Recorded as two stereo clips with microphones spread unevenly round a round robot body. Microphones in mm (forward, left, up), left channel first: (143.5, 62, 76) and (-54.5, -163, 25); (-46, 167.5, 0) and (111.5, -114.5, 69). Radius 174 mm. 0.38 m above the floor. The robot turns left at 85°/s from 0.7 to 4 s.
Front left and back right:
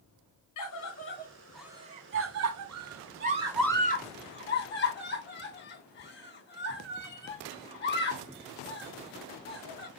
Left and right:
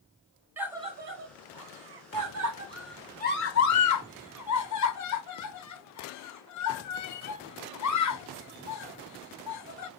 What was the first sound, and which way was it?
A scream, 30° left.